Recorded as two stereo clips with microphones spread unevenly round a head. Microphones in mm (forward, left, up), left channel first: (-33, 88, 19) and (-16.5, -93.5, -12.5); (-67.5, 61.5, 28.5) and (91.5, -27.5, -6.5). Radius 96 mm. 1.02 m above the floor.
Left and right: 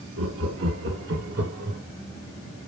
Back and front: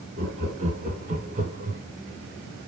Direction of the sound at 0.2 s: 80° right.